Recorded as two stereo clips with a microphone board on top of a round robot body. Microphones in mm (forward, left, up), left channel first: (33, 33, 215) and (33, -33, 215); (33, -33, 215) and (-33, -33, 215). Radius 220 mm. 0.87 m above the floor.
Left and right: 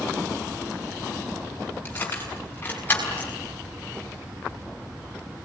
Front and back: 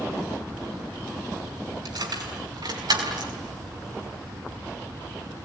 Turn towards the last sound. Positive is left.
turn(degrees=160)